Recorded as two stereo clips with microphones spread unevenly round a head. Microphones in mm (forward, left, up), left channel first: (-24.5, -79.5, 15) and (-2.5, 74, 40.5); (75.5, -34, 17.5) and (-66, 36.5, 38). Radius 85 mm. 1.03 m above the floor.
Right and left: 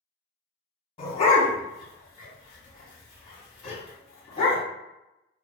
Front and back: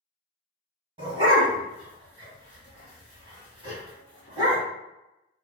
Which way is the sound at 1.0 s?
155° right.